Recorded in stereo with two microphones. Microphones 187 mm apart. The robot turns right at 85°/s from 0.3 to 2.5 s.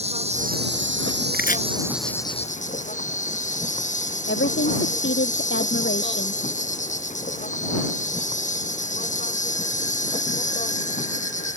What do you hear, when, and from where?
0.0 s an insect: 145° right; by 11.6 s 40° left
1.3 s chopping: 60° left (ahead or behind); by 1.6 s 40° left (ahead or behind)
4.3 s a woman speaking: 80° left